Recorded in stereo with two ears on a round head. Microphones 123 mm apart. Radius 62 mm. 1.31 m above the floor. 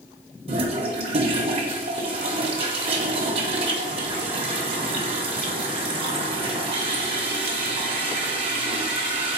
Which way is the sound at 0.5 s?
40° right (ahead or behind).